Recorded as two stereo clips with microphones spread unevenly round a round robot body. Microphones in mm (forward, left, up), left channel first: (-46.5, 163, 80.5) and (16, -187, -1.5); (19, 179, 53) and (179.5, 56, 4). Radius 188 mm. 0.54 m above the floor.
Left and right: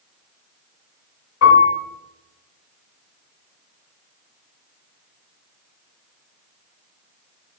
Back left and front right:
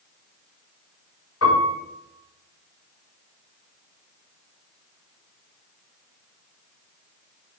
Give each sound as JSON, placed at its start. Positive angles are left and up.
{"t": 1.4, "sound": "a piano", "azimuth_deg": 150, "distance_m": 1.9}